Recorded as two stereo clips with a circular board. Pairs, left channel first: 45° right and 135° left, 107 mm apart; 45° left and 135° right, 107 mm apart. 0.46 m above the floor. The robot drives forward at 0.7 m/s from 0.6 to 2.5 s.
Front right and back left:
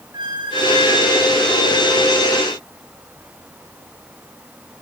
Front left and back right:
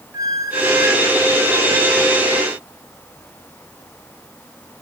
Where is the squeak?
175° left, 1.2 m.